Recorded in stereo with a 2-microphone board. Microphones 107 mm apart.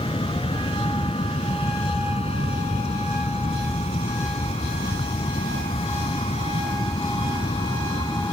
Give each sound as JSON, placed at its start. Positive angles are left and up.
{"t": 0.0, "sound": "an aircraft", "side_deg": 60}